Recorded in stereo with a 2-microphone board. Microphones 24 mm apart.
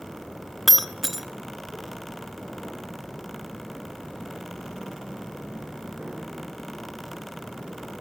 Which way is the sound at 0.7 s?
5° right (ahead or behind).